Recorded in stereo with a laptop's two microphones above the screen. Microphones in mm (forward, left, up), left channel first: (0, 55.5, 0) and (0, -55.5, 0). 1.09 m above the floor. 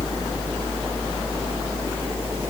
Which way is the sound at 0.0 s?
20° right (ahead or behind).